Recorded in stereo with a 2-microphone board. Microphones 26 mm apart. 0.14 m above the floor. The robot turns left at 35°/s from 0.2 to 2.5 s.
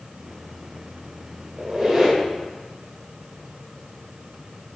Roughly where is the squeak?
Right.